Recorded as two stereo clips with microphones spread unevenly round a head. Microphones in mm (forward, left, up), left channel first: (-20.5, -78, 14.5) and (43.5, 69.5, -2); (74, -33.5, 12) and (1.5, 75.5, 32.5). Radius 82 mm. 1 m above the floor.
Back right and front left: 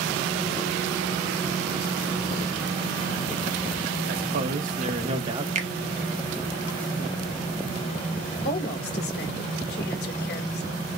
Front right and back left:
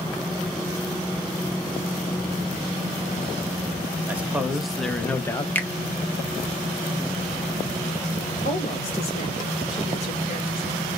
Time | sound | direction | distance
4.1 | a man speaking | 45° left | 1.2 m
5.5 | a finger snap | 20° left | 1.0 m
8.4 | a woman speaking | 95° right | 1.7 m